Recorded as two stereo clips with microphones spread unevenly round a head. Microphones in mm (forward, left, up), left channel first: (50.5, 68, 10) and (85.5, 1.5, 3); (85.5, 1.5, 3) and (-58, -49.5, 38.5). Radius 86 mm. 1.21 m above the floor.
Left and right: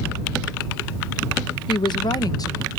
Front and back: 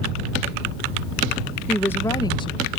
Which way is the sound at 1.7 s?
100° left.